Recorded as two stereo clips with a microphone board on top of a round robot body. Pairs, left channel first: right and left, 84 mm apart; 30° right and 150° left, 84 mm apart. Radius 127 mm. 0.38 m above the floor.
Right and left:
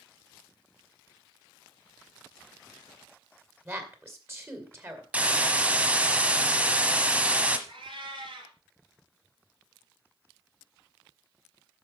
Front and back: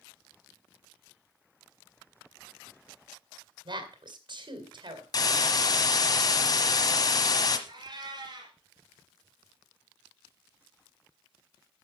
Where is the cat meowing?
115° left, 3 m.